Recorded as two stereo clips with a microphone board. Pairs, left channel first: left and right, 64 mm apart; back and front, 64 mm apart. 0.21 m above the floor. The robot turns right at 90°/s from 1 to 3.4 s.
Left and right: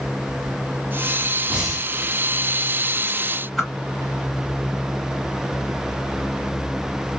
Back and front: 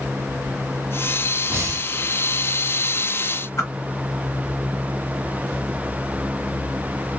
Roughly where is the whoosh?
Behind.